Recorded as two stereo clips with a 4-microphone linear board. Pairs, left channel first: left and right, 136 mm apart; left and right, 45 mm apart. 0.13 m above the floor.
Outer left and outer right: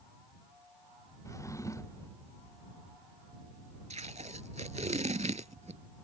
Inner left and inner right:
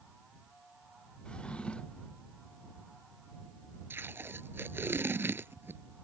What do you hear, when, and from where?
1.2 s a drawer: 25° left (ahead or behind)
3.9 s tape being pulled: 60° right (ahead or behind)